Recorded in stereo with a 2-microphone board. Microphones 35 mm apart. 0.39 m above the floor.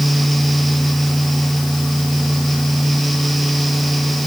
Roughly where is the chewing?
No chewing in this recording.